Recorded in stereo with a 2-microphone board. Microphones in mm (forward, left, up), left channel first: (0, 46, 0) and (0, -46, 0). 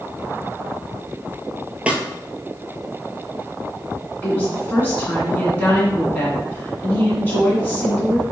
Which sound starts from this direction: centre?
A snare drum, at 1.9 s.